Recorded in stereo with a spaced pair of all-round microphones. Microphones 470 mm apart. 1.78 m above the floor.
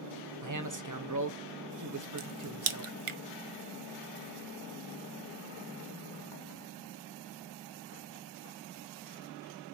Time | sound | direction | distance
0.4 | a man speaking | 40° right (ahead or behind) | 0.8 m
2.2 | a crack | 80° right | 0.6 m